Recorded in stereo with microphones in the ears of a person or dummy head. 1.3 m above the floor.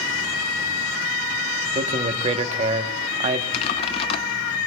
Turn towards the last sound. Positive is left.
turn(degrees=20)  # may be behind; listen again after turning